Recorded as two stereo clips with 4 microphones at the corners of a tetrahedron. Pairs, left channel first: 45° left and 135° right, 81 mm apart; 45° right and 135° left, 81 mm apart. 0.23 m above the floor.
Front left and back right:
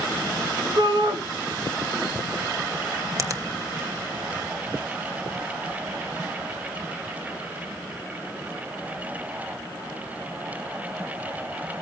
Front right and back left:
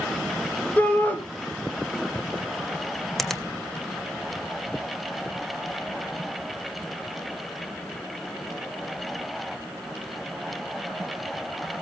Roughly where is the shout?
Behind right.